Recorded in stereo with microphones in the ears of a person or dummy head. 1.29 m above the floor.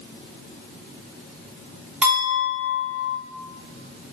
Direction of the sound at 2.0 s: 5° right (ahead or behind).